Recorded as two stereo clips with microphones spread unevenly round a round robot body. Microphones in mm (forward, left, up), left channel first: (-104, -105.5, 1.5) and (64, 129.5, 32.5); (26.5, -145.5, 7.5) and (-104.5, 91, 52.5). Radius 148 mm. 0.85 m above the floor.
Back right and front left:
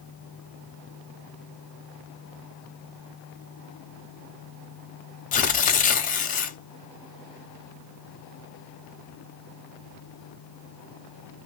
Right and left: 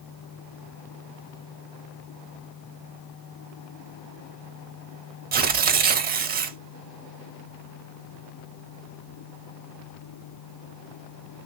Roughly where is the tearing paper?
Behind.